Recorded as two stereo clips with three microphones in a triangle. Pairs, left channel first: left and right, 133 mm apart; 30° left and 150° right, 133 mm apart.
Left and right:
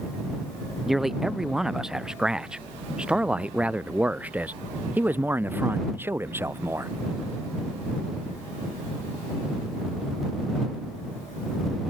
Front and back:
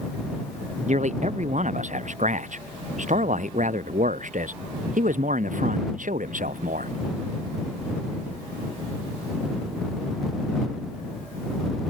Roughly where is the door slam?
I don't hear a door slam.